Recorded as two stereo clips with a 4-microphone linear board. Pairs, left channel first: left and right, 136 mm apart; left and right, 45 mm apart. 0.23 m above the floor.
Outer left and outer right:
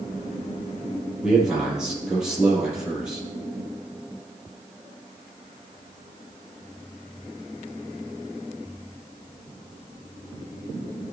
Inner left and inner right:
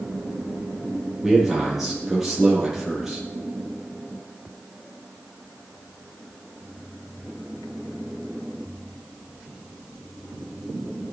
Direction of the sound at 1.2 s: 5° right (ahead or behind).